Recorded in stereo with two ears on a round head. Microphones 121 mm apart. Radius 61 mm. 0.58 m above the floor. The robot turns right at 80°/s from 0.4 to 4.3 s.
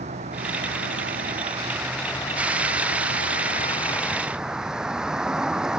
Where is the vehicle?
125° right; by 5.8 s 175° right.